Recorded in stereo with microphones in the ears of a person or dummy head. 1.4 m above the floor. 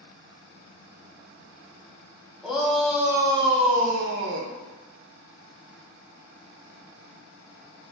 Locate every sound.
2.4 s a shout: 5° right (ahead or behind), 0.9 m; by 4.5 s 65° right (ahead or behind), 0.6 m